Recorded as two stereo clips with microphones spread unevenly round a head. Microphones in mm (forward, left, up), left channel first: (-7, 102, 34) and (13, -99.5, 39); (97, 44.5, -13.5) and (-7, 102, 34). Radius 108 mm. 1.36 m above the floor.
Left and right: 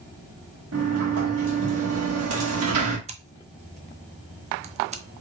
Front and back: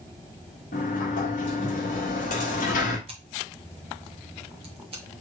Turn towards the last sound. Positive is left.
turn(degrees=-140)